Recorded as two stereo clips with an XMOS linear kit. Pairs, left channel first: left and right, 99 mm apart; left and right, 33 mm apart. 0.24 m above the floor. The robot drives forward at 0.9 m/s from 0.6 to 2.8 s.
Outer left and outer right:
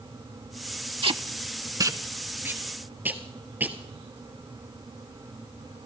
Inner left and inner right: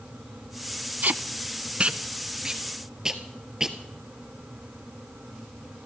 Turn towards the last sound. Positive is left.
turn(degrees=-15)  # may be behind; listen again after turning